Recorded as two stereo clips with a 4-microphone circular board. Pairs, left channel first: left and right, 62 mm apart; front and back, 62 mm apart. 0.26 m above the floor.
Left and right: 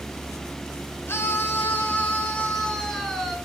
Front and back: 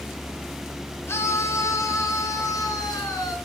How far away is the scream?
About 3 m.